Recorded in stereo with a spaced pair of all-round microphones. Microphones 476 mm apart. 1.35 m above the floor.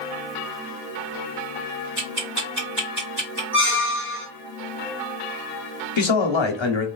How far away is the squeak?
About 1.5 m.